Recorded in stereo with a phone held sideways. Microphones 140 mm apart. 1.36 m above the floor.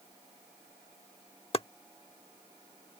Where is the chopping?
45° left (ahead or behind).